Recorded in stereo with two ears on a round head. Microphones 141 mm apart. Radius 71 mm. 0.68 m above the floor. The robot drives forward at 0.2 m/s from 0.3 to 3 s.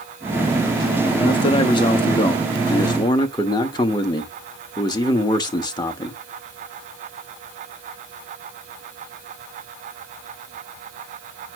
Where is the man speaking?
30° left (ahead or behind), 1.0 m; by 6.2 s 25° left (ahead or behind), 1.1 m.